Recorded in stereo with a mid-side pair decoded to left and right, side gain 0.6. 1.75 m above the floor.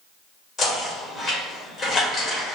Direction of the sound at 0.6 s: 35° left.